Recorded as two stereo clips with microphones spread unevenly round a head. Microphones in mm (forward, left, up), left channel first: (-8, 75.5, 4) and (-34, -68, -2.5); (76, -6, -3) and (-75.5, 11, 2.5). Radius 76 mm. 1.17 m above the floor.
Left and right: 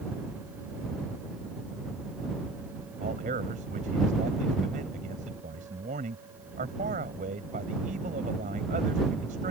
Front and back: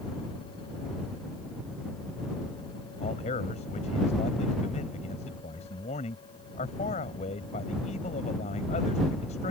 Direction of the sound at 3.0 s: 55° right.